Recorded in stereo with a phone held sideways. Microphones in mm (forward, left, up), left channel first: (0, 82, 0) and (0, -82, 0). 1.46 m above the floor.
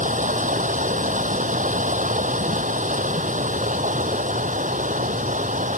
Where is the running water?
50° right (ahead or behind).